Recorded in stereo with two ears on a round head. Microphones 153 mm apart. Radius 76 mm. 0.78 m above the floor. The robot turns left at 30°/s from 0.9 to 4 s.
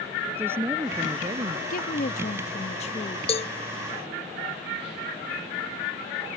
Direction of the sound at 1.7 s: 85° left.